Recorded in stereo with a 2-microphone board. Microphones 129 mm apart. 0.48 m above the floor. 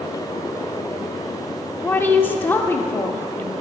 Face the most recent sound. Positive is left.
turn(degrees=15)  # may be behind; listen again after turning